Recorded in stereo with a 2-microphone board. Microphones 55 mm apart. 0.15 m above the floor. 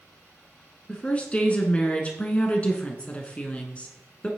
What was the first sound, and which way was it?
A woman speaking, 20° left (ahead or behind).